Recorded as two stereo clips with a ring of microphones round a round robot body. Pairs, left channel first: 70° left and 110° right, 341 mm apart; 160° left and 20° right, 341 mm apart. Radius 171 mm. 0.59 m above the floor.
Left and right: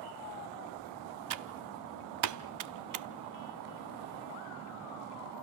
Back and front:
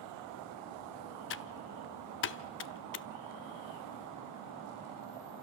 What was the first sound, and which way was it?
Typing on a keyboard, 150° right.